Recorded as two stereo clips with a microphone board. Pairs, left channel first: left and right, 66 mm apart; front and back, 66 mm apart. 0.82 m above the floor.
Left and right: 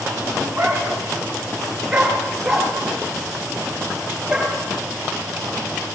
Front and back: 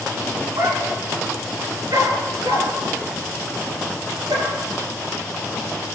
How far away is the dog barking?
About 3.5 m.